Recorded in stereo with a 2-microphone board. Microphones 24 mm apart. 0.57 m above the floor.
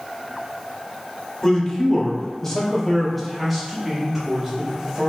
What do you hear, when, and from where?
1.4 s a man speaking: 30° left (ahead or behind), 1.3 m; by 5.1 s 15° right (ahead or behind), 2 m